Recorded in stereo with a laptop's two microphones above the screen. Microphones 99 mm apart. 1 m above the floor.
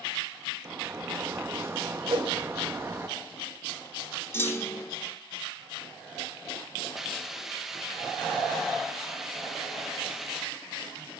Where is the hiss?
5° right (ahead or behind), 1.0 m.